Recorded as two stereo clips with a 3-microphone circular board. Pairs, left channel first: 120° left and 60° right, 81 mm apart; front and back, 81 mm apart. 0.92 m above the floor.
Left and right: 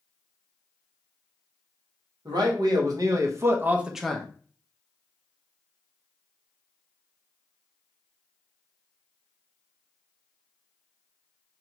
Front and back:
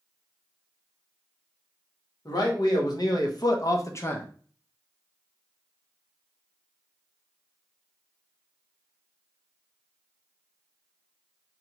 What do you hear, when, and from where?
2.2 s a man speaking: 35° right, 1.1 m; by 4.3 s 55° left, 0.5 m